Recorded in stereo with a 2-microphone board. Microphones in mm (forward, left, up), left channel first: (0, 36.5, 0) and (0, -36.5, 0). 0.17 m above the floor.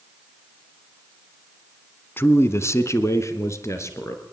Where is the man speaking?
30° left (ahead or behind), 1.9 m; by 4.2 s 40° left (ahead or behind), 4 m.